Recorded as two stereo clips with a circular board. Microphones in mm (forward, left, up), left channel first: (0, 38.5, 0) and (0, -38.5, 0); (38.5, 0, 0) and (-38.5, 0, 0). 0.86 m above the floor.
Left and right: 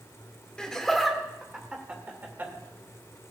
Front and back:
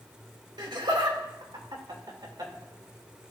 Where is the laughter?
170° left, 2 m; by 2.5 s 150° right, 2.5 m.